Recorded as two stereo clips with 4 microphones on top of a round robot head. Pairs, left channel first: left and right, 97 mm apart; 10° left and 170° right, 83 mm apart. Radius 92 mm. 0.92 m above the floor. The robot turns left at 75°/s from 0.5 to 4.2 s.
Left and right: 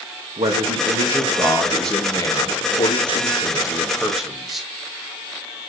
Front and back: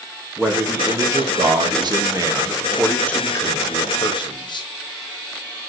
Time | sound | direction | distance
0.4 | a man speaking | 85° right | 1.6 m